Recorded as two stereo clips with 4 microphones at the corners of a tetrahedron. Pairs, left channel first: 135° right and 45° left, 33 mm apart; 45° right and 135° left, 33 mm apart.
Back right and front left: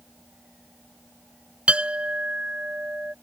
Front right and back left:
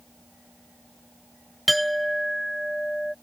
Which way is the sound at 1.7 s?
45° left.